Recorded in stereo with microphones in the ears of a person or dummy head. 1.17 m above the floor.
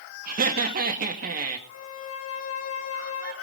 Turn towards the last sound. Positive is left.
turn(degrees=80)